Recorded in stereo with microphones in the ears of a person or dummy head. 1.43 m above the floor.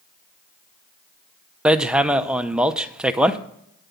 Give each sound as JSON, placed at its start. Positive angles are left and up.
{"t": 1.6, "sound": "hammering", "side_deg": -5, "distance_m": 0.6}